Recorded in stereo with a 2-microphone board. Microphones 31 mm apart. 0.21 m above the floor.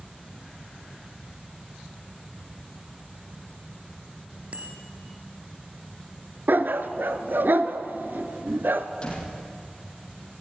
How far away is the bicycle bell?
About 2.5 m.